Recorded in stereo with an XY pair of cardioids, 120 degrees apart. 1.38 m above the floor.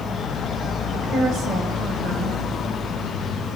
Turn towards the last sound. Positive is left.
turn(degrees=-60)